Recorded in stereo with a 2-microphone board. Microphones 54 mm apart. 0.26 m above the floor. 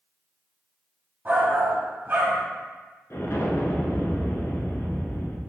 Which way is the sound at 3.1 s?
55° left (ahead or behind).